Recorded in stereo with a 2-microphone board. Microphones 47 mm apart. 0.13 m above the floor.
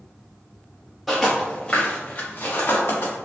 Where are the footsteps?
Centre (ahead or behind), 1.0 m; by 3.1 s 55° left (ahead or behind), 1.5 m.